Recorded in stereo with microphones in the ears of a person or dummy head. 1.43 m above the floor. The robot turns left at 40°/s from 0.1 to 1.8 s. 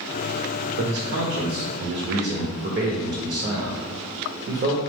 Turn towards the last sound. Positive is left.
turn(degrees=-125)